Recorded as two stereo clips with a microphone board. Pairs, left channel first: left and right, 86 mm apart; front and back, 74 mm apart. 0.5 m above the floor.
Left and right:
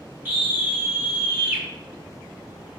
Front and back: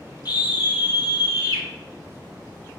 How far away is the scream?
About 3 m.